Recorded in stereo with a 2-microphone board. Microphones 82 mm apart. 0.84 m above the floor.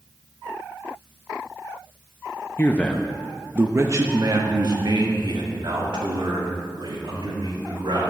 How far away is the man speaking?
About 0.6 m.